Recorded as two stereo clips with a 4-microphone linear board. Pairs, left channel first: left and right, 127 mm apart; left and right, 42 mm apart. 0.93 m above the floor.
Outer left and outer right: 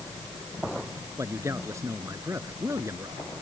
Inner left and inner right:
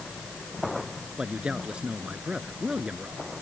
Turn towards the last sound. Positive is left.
turn(degrees=-25)  # may be behind; listen again after turning